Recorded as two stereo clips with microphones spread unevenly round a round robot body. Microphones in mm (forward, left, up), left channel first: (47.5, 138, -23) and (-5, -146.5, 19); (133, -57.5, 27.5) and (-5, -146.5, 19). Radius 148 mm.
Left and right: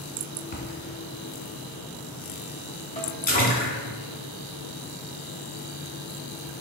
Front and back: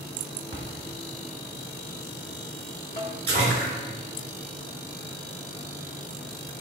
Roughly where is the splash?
Behind left.